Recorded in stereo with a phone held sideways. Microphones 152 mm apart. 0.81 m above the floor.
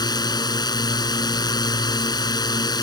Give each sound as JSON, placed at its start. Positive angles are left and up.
{"t": 0.0, "sound": "a drone", "side_deg": 25}